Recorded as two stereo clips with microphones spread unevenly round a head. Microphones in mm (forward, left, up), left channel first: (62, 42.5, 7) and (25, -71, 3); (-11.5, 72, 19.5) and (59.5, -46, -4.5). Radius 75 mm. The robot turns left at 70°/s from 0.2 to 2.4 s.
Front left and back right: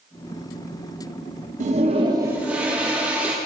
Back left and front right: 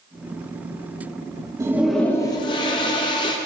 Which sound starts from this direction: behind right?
A toilet flushing, at 1.6 s.